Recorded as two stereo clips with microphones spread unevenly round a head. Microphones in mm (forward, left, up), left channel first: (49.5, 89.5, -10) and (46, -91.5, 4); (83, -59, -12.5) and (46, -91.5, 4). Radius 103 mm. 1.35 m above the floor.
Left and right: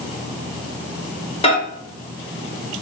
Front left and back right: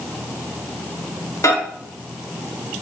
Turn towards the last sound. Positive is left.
turn(degrees=30)